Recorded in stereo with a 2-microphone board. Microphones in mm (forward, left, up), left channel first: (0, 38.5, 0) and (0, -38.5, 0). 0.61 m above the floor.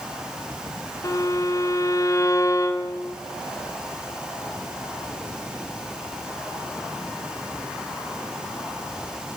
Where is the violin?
40° left (ahead or behind), 1.7 m.